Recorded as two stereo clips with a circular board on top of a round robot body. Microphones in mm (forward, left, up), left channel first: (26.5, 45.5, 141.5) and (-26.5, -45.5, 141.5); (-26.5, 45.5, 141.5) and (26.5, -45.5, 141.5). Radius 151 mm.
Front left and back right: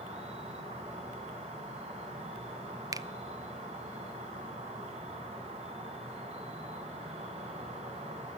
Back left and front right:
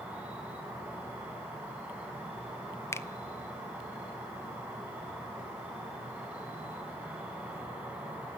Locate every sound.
0.0 s an insect: 140° right, 4 m
2.9 s a finger snap: 175° right, 0.7 m